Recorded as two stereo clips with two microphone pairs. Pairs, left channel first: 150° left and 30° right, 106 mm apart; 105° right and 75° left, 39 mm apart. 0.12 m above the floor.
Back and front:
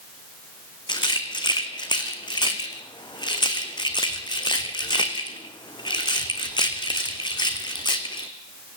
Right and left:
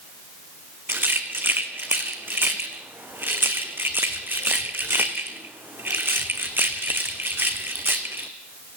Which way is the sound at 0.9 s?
105° left.